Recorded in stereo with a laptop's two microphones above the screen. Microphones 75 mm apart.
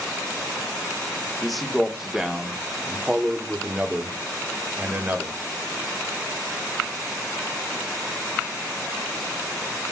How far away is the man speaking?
About 3 m.